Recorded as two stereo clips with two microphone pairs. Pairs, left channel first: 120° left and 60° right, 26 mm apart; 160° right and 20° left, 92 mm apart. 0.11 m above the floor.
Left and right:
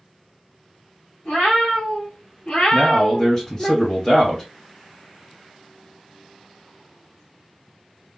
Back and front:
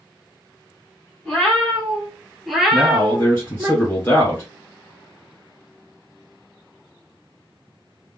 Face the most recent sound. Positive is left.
turn(degrees=155)